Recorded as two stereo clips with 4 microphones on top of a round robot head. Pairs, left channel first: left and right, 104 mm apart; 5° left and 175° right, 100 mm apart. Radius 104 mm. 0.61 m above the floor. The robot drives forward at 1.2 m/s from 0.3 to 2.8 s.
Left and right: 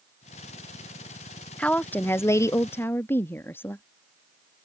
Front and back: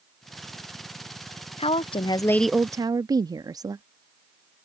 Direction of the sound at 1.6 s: 15° left.